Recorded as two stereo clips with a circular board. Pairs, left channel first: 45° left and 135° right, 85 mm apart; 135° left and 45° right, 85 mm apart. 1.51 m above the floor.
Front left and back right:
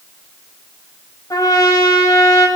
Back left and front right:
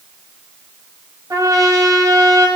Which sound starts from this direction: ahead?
A trumpet, at 1.3 s.